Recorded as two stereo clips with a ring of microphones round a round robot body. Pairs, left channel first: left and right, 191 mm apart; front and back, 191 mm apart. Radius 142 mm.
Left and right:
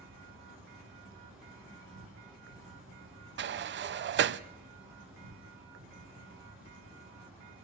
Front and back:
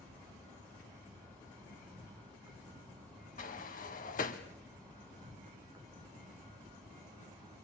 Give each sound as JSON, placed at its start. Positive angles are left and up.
{"t": 0.0, "sound": "an insect", "azimuth_deg": -105, "distance_m": 3.0}
{"t": 3.4, "sound": "a sliding door", "azimuth_deg": -60, "distance_m": 0.6}